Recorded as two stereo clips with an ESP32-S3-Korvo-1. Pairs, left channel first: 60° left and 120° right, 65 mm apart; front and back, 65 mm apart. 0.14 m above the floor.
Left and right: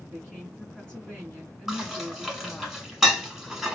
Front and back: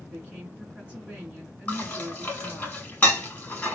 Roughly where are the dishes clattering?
Ahead right.